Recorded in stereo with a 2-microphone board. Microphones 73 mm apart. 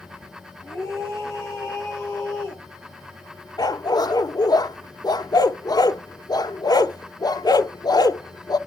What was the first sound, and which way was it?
A scream, 40° left (ahead or behind).